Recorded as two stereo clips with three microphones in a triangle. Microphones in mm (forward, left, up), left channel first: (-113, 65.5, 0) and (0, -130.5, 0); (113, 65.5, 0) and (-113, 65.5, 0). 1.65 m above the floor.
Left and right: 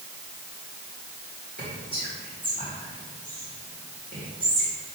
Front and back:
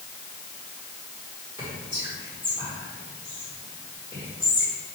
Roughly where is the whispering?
Right.